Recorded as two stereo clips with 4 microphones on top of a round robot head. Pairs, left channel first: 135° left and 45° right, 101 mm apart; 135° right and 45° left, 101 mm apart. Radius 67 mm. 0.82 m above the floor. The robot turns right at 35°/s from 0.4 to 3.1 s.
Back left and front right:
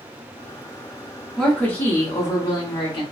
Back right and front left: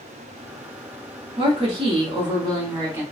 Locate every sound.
1.4 s a woman speaking: 50° left, 1.8 m; by 3.0 s 105° left, 1.8 m